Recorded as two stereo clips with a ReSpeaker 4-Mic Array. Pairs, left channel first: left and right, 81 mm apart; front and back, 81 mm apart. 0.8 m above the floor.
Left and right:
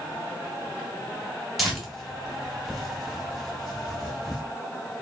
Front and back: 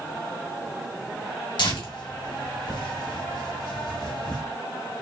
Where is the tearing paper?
Straight ahead, 1.6 m.